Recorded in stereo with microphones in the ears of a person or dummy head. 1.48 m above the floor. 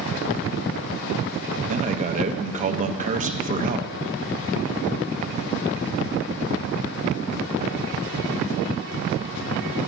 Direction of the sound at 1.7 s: 30° right (ahead or behind).